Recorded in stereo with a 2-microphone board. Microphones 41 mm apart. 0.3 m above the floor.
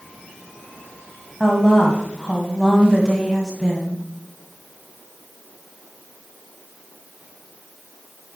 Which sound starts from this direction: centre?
A woman speaking, at 1.4 s.